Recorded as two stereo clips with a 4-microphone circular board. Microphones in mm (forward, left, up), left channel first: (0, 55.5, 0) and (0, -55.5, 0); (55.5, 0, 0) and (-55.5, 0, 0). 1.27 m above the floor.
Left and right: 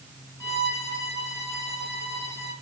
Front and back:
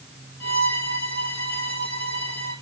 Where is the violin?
155° left, 5 m.